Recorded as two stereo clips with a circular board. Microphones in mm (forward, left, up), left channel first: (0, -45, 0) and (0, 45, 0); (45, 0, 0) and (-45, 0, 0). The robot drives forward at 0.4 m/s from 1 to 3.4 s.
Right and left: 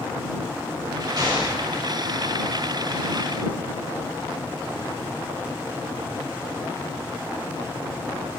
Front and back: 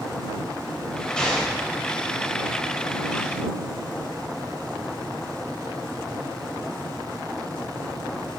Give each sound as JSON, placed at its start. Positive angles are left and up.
{"t": 1.2, "sound": "an explosion", "azimuth_deg": 80, "distance_m": 1.6}